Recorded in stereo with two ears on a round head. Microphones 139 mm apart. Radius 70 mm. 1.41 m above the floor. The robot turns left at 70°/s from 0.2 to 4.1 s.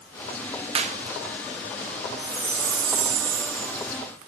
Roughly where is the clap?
Right.